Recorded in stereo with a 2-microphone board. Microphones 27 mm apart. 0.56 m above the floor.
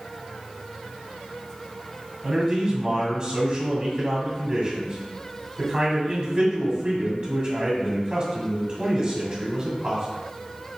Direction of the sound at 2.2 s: 40° right (ahead or behind).